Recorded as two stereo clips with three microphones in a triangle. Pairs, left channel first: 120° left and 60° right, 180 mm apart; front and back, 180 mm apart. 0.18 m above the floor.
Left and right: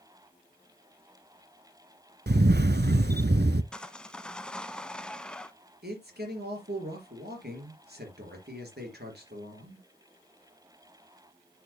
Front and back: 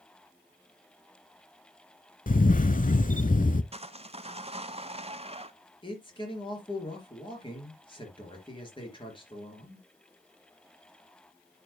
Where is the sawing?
160° right, 0.5 m.